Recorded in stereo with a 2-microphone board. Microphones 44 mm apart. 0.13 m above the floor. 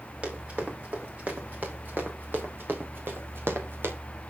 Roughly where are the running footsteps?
Right.